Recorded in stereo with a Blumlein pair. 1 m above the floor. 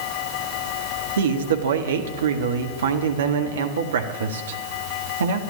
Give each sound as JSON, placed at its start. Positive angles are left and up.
{"t": 1.2, "sound": "a man speaking", "azimuth_deg": -65, "distance_m": 1.5}